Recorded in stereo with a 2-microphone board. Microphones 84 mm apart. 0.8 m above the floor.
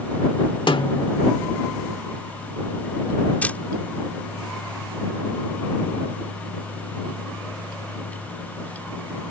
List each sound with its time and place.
0.7 s a snare drum: 70° left (ahead or behind)
3.4 s a camera shutter: 20° left (ahead or behind)